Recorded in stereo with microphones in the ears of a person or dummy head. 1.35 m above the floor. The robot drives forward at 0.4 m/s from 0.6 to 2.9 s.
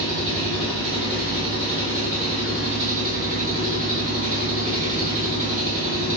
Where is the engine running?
45° right (ahead or behind), 1.7 m; by 6.2 s 50° right (ahead or behind), 1.6 m.